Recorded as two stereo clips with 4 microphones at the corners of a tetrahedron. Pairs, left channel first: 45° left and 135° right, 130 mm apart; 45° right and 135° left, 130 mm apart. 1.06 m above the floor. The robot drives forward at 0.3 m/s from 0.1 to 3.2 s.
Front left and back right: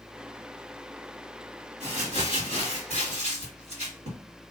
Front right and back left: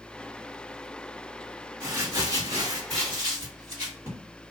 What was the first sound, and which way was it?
Crumpling, 160° right.